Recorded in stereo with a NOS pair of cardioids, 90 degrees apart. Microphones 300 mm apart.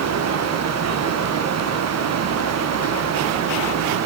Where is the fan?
65° right, 1.2 m.